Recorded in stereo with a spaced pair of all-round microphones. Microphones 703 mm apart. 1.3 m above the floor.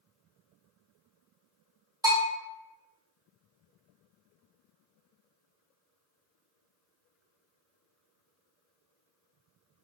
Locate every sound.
2.0 s a bell: 5° right (ahead or behind), 0.8 m